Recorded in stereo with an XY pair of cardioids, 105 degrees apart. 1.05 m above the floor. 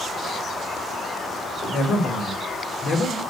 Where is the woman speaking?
60° left, 3.5 m; by 3.2 s 50° left, 2.5 m.